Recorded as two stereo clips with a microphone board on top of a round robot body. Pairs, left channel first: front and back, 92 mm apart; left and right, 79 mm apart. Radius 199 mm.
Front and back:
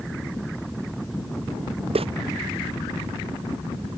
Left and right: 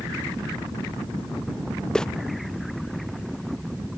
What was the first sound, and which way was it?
Footsteps, 170° left.